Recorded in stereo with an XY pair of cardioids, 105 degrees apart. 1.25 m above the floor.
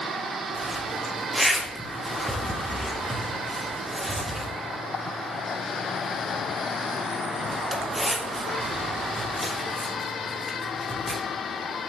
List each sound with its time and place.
0.6 s a zipper: 5° right, 1.5 m